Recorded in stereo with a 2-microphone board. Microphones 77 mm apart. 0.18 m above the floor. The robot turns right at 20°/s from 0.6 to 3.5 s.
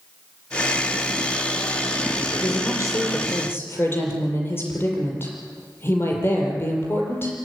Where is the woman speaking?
50° left (ahead or behind), 6 m; by 7.3 s 30° left (ahead or behind), 6 m.